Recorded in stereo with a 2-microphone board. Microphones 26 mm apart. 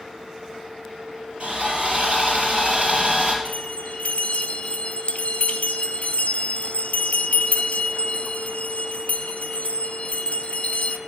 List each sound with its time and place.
1.4 s sawing: 50° right (ahead or behind), 3.5 m
3.5 s a bell: 70° left (ahead or behind), 0.9 m